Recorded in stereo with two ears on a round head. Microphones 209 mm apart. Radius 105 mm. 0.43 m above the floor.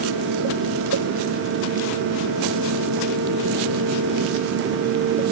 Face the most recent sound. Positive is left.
No sound to turn to.